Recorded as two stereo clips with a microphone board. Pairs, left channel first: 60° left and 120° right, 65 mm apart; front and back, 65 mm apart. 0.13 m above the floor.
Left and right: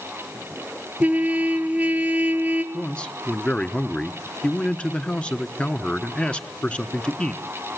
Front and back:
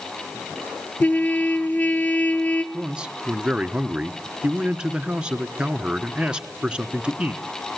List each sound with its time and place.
1.0 s a trumpet: 60° right, 1.3 m
2.7 s a man speaking: 115° left, 1.2 m